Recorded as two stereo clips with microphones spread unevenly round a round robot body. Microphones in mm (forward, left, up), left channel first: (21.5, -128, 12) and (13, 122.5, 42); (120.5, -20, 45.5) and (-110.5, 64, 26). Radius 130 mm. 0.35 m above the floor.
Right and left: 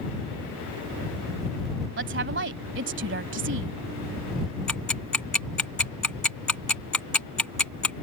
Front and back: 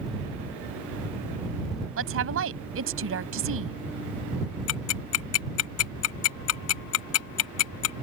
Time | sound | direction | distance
2.0 | a woman speaking | 135° left | ?
4.7 | ticking | 5° right | ?